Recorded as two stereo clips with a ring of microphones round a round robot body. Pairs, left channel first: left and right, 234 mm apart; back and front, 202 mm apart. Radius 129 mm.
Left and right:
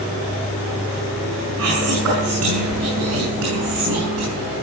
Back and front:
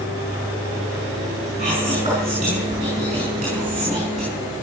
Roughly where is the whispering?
Right.